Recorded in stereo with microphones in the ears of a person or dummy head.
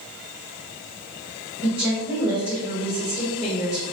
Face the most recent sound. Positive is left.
turn(degrees=-10)  # may be behind; listen again after turning